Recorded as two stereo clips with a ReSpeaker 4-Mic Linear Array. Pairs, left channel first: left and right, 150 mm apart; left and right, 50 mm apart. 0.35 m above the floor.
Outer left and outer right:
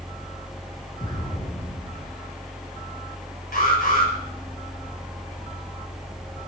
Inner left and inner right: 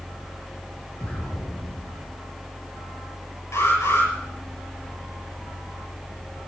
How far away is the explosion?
About 3.5 m.